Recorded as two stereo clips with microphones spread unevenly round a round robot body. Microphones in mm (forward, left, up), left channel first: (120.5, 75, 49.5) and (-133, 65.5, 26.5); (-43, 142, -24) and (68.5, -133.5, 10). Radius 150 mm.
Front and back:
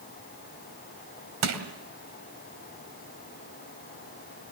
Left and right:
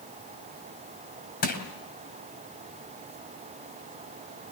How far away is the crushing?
About 2.5 m.